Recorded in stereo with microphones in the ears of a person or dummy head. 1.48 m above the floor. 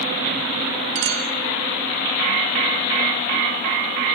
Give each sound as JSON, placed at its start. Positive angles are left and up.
{"t": 0.9, "sound": "a clink", "side_deg": -65, "distance_m": 2.0}